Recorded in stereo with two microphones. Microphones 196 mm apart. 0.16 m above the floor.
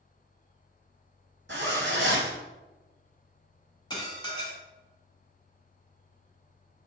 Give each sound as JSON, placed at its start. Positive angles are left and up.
{"t": 1.5, "sound": "a zipper", "side_deg": -70, "distance_m": 1.2}
{"t": 3.9, "sound": "dishes clattering", "side_deg": 20, "distance_m": 1.0}